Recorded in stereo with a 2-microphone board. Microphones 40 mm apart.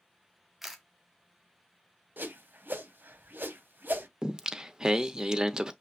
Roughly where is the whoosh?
Right.